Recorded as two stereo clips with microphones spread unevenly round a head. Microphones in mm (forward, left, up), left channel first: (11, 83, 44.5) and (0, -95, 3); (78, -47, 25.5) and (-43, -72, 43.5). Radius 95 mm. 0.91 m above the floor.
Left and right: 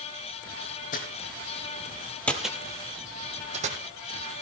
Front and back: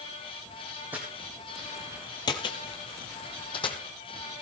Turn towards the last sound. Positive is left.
turn(degrees=-35)